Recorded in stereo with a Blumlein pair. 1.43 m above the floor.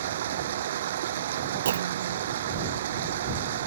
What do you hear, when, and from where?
0.0 s running water: 60° right
1.6 s a clunk: 65° right